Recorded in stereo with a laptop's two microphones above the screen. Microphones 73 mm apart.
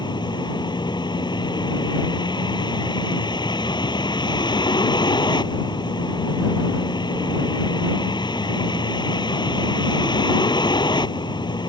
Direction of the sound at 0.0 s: 85° left.